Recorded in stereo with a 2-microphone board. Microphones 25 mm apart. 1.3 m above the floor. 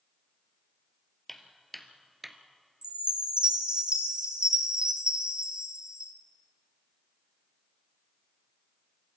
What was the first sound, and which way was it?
Footsteps, 10° left (ahead or behind).